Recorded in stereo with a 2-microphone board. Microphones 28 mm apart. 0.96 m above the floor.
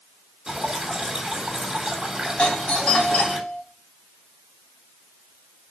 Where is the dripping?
25° right (ahead or behind), 3.5 m.